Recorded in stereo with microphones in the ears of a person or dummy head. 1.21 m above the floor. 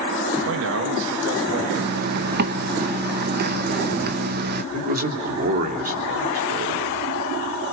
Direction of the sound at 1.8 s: 50° right (ahead or behind).